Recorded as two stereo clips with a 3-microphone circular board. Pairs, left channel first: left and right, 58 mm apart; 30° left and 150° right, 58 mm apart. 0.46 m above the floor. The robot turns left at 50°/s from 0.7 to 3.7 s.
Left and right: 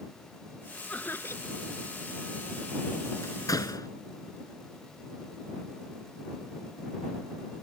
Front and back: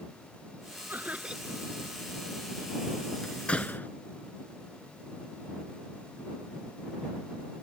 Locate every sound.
0.9 s laughter: 155° left; by 1.6 s 120° left
3.2 s a door slam: 110° left; by 3.9 s 90° left